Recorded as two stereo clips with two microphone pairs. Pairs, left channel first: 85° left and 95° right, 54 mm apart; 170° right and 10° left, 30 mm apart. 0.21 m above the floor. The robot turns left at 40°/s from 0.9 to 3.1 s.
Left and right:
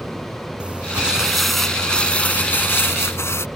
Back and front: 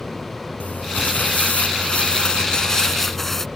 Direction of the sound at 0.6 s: 160° right.